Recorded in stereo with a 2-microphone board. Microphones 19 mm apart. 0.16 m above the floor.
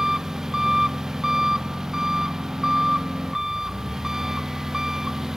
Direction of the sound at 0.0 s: 25° right (ahead or behind).